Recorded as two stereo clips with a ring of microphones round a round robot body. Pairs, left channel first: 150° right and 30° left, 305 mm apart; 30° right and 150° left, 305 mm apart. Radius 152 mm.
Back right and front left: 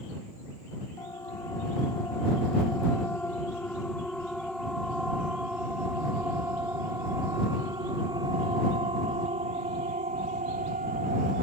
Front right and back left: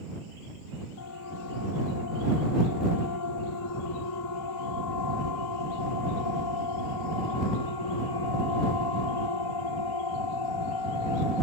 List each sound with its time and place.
1.0 s a siren: 70° right; by 11.4 s 35° right